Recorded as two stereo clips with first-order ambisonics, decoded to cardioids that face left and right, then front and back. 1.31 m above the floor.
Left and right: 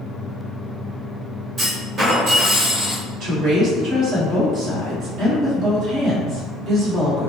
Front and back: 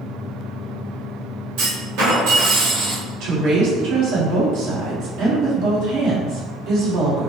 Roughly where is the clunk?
Behind right.